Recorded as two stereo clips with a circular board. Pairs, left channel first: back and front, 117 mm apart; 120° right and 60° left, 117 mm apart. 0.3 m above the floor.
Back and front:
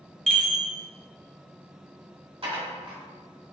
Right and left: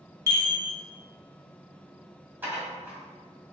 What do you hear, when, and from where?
0.3 s a chime: 90° left, 1.0 m
2.4 s dishes clattering: 10° right, 1.4 m